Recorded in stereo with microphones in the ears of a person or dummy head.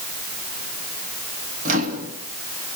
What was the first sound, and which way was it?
A microwave, 40° right (ahead or behind).